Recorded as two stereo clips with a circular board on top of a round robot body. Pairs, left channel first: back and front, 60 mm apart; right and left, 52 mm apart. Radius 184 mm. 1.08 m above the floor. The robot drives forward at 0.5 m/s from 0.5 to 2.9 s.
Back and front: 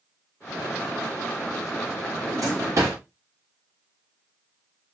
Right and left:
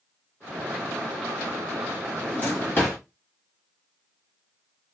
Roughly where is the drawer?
Ahead right.